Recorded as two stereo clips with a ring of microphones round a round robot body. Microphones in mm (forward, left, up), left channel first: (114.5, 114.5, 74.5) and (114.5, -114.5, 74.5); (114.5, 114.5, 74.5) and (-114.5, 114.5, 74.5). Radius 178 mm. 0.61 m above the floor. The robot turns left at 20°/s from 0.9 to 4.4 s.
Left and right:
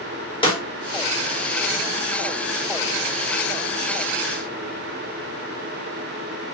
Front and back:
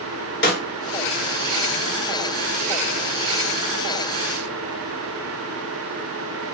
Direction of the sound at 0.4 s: 25° left.